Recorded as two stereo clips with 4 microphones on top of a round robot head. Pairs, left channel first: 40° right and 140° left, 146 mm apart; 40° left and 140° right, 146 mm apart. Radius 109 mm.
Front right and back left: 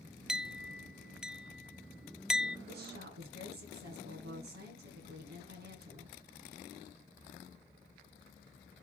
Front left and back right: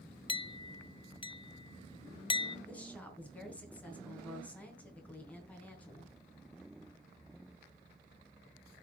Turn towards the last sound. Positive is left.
turn(degrees=125)